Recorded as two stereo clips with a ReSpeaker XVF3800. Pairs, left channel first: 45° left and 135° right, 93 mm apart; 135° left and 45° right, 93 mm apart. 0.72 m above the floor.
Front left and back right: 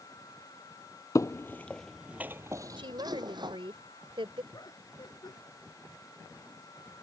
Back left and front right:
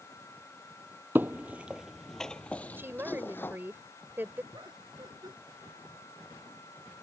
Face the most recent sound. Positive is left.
turn(degrees=0)